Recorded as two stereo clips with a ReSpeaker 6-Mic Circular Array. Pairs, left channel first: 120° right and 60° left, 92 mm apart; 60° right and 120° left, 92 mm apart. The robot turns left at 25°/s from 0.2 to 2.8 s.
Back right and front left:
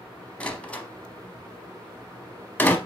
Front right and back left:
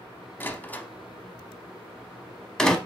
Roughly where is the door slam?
Right.